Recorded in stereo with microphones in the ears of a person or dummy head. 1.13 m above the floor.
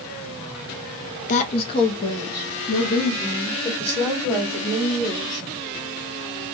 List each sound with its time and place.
1.3 s a woman speaking: 45° left (ahead or behind), 0.7 m; by 5.4 s 5° left (ahead or behind), 3 m